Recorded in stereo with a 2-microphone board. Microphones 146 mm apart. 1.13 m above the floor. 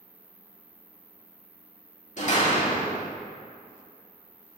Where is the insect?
20° left (ahead or behind), 1.1 m.